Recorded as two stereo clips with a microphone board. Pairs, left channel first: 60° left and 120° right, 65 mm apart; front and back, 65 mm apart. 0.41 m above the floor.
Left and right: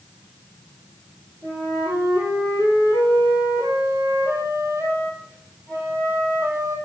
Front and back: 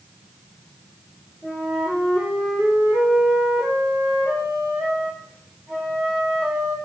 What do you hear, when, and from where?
1.4 s a flute: 125° right, 4.5 m